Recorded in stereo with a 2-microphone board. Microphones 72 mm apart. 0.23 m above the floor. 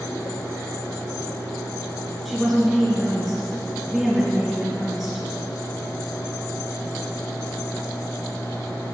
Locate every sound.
2.2 s a woman speaking: centre (ahead or behind), 3 m